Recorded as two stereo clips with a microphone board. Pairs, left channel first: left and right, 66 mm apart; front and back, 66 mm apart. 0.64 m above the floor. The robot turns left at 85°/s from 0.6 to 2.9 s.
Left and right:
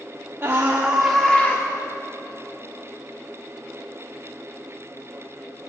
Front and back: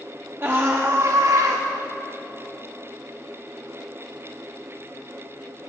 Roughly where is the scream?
Behind right.